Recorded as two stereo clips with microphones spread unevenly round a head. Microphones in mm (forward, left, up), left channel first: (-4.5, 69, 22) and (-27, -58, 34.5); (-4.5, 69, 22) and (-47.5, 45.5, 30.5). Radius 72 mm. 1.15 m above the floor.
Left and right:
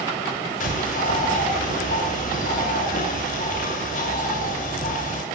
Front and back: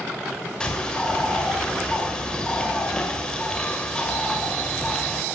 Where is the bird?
100° left, 6.5 m.